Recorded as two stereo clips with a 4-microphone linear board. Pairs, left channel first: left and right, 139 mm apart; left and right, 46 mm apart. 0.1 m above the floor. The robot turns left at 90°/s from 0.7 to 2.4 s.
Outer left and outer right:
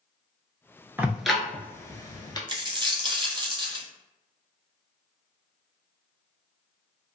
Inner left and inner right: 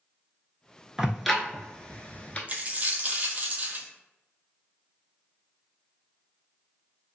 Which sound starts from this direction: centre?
Ticking, at 1.0 s.